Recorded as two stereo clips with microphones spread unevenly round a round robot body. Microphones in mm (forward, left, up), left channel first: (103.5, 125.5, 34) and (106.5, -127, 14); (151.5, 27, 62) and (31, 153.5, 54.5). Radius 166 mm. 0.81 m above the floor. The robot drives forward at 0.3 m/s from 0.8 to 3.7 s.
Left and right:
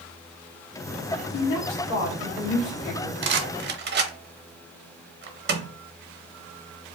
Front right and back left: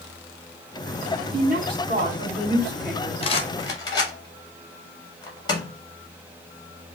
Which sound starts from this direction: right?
A rattle, at 3.2 s.